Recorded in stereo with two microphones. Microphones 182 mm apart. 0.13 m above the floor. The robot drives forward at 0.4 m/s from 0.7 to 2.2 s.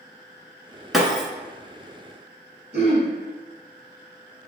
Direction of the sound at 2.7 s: 35° right (ahead or behind).